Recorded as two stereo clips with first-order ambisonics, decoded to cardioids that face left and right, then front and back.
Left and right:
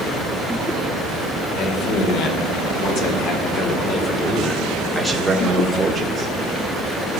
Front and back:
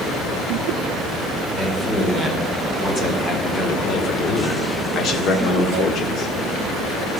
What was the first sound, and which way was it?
A man speaking, 80° left.